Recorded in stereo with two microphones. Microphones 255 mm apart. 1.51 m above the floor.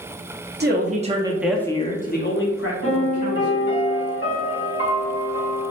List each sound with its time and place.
0.6 s a man speaking: 40° right (ahead or behind), 0.7 m; by 3.8 s 75° left (ahead or behind), 1.3 m
2.8 s a piano: 45° left (ahead or behind), 1.8 m